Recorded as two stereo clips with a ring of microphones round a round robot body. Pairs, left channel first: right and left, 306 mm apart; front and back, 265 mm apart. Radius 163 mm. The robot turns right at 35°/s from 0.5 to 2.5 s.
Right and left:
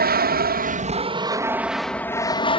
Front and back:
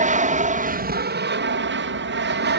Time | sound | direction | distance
0.0 | an aircraft | 135° left | ?